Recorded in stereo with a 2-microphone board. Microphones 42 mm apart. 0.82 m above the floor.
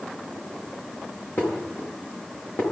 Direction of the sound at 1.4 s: 60° left (ahead or behind).